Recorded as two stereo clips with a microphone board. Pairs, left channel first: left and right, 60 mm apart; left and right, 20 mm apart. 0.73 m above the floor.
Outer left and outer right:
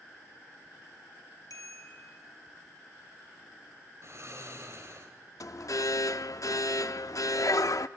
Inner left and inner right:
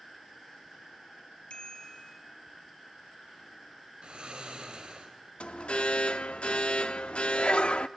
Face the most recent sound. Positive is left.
turn(degrees=70)  # may be behind; listen again after turning